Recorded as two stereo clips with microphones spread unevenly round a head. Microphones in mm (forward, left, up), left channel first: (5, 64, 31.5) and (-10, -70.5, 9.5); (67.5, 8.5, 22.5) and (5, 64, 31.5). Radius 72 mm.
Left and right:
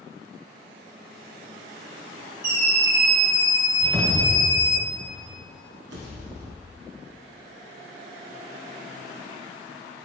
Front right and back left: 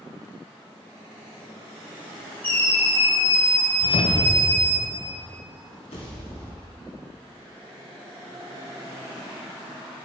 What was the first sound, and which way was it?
A scream, 120° right.